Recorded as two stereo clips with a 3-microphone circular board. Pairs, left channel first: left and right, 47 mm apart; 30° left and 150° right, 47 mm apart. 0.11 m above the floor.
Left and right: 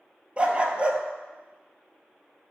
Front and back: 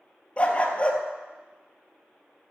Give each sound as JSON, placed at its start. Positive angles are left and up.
{"t": 0.4, "sound": "a dog barking", "azimuth_deg": -30, "distance_m": 0.8}